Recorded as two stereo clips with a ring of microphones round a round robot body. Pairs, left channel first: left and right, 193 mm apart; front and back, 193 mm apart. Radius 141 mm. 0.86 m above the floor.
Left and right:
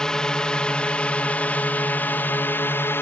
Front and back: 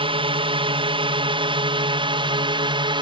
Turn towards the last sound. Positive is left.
turn(degrees=155)